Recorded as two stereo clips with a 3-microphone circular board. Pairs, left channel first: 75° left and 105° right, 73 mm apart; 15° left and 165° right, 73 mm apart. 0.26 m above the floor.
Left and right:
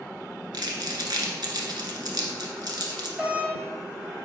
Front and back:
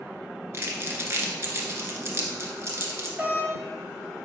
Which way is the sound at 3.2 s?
135° right.